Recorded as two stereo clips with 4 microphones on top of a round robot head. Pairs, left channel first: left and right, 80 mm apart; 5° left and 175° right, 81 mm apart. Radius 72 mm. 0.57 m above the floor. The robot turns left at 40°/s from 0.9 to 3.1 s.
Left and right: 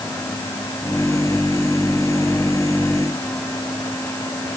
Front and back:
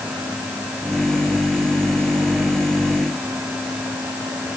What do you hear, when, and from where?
Only background noise.